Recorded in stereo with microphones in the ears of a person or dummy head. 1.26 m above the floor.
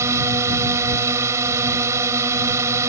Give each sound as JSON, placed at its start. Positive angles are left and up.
{"t": 0.0, "sound": "a drone", "side_deg": -10}